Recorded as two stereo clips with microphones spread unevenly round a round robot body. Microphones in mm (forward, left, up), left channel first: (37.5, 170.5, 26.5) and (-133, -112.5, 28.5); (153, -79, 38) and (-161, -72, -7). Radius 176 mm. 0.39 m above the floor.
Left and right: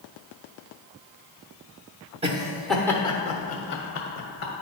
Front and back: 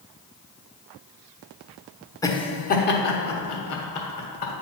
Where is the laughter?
85° right, 0.9 m; by 4.5 s 25° left, 1.4 m.